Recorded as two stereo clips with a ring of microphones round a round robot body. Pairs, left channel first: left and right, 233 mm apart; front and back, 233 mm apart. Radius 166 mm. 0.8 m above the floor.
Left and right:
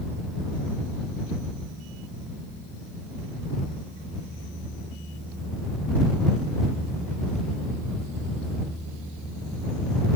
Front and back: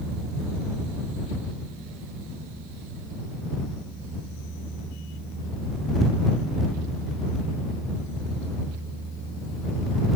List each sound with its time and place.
Only background noise.